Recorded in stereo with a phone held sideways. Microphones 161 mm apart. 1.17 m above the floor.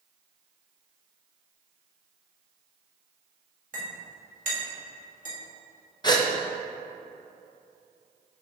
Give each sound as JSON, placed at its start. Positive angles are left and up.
{"t": 3.7, "sound": "a clink", "side_deg": -55, "distance_m": 1.6}
{"t": 6.0, "sound": "a gasp", "side_deg": 25, "distance_m": 0.7}